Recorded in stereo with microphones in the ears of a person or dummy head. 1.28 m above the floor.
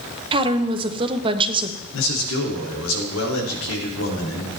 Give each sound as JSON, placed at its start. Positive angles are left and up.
{"t": 0.3, "sound": "a woman speaking", "side_deg": -30, "distance_m": 1.0}
{"t": 1.9, "sound": "a man speaking", "side_deg": 75, "distance_m": 2.5}